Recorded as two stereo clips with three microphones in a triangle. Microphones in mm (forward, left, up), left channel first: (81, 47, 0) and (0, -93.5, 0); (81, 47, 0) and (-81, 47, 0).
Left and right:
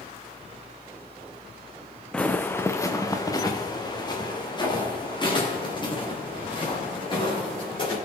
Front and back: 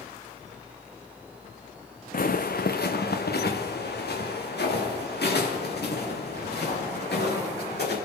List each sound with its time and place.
2.1 s footsteps: 25° right, 0.8 m; by 8.0 s straight ahead, 5.5 m